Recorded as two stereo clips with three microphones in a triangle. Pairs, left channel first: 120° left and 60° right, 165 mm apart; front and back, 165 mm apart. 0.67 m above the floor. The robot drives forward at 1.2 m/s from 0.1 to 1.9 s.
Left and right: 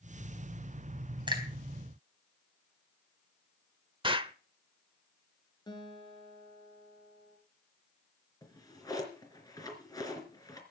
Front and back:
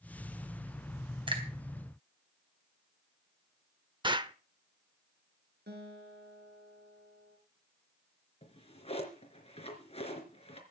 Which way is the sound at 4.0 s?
115° right.